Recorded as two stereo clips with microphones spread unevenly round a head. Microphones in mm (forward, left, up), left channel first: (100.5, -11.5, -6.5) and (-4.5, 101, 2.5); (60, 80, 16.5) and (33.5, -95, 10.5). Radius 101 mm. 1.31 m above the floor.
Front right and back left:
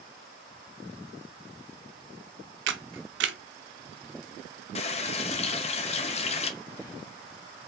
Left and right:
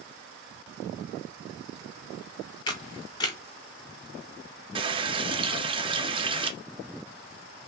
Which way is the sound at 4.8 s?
55° right.